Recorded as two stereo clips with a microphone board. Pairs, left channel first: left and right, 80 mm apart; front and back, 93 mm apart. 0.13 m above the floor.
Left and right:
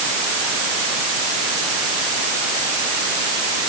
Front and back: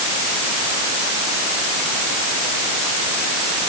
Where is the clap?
I don't hear a clap.